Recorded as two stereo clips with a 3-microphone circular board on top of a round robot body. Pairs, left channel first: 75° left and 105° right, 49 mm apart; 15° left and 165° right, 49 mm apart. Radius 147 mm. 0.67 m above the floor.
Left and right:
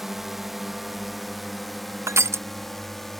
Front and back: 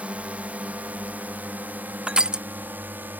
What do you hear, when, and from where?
0.0 s a drone: 175° left; by 3.2 s 160° left
2.1 s crushing: 95° right